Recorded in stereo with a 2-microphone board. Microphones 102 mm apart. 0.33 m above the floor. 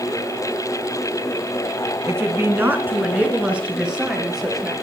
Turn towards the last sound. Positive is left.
turn(degrees=-5)  # may be behind; listen again after turning